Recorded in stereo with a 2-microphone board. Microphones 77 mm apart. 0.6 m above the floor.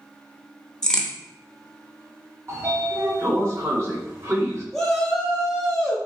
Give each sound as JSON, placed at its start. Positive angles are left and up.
{"t": 0.8, "sound": "a crack", "side_deg": 10, "distance_m": 0.7}
{"t": 2.5, "sound": "a sliding door", "side_deg": -45, "distance_m": 1.1}
{"t": 4.7, "sound": "a shout", "side_deg": 5, "distance_m": 0.7}